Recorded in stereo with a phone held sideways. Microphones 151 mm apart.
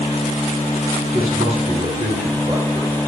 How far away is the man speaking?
About 8 m.